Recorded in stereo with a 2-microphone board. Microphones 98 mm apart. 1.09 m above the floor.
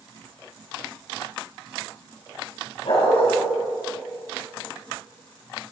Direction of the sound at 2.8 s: 75° left (ahead or behind).